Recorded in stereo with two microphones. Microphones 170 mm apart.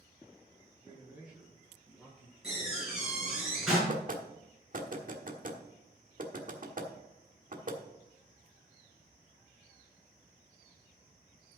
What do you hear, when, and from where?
0.8 s a man speaking: 15° right (ahead or behind), 6.5 m; by 2.3 s 5° left (ahead or behind), 7.5 m
2.4 s a door slam: 5° right (ahead or behind), 6 m
3.9 s knocking: 50° right (ahead or behind), 1.4 m